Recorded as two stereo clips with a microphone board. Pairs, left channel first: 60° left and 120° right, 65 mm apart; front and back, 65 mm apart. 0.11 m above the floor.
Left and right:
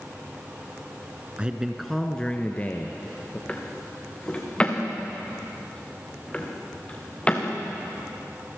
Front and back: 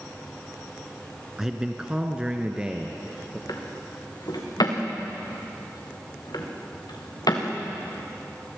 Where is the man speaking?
115° right, 1.1 m; by 3.4 s 105° left, 2 m.